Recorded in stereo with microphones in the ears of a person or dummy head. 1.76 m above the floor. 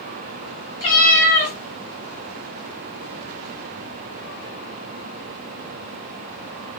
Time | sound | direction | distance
0.8 | a cat meowing | 25° left (ahead or behind) | 1.4 m